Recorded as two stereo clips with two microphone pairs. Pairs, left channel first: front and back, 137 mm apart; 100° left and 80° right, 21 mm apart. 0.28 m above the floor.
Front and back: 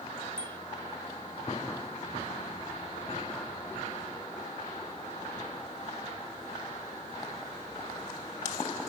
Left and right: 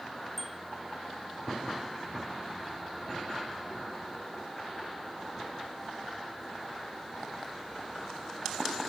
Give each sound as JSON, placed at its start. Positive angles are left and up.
{"t": 0.4, "sound": "a bicycle bell", "azimuth_deg": 5}